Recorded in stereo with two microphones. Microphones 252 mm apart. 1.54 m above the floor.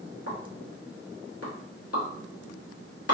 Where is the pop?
75° left (ahead or behind), 0.9 m.